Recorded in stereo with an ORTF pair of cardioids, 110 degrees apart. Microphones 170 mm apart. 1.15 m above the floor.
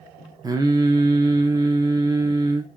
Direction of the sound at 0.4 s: 20° right.